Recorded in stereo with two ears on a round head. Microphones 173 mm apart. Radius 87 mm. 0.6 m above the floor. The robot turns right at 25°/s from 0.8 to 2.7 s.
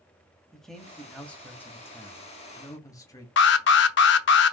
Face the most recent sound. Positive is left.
turn(degrees=60)  # may be behind; listen again after turning